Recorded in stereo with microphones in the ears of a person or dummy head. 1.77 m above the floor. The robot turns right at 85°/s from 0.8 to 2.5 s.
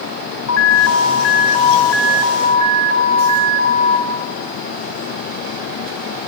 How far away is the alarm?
About 5.5 m.